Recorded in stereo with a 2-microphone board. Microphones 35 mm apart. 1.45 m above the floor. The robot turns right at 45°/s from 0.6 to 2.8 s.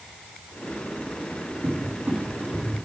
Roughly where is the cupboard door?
Right.